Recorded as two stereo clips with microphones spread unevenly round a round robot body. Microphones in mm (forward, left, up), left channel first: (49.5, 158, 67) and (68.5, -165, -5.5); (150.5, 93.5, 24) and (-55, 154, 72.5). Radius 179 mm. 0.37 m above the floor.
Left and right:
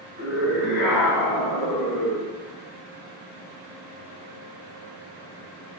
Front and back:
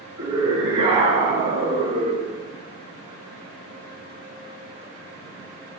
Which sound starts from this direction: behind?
A scream, at 0.2 s.